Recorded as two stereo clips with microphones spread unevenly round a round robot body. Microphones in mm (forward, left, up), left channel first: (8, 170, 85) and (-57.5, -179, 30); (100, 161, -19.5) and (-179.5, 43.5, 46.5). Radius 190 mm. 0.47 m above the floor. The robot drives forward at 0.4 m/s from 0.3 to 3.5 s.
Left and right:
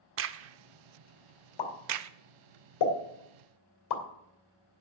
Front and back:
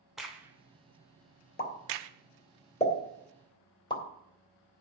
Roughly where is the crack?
Ahead right.